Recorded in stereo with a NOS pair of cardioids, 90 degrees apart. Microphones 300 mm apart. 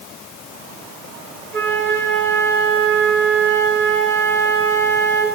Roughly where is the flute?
Ahead right.